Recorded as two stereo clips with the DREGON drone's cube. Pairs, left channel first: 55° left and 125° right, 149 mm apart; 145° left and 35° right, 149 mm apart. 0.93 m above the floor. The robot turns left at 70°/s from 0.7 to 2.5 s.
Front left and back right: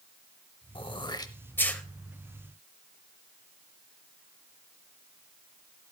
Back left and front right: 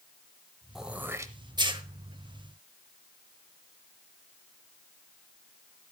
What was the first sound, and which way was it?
Throat clearing, 50° left.